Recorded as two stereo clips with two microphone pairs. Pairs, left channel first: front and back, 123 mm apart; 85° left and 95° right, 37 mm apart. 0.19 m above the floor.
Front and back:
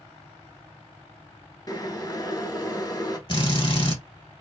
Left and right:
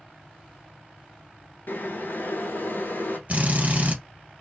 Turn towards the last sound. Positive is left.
turn(degrees=-45)